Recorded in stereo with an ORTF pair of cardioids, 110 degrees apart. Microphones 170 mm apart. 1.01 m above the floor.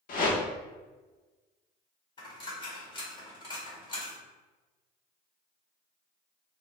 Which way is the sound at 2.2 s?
30° left.